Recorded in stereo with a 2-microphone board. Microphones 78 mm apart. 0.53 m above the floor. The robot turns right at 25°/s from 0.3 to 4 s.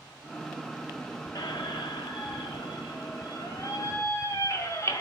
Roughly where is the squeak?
Left.